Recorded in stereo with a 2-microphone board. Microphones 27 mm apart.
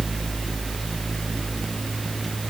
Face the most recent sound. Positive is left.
No sound to turn to.